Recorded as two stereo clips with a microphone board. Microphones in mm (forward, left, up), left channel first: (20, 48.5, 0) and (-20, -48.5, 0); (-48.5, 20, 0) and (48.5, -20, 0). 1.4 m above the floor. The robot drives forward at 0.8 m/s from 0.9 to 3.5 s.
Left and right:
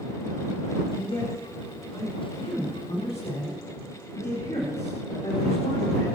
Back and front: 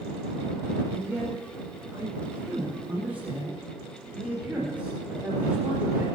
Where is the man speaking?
40° left, 6.5 m; by 6.0 s 55° left, 5 m.